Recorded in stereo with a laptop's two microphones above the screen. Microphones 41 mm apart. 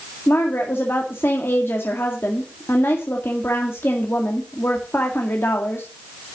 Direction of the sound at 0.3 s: 65° left (ahead or behind).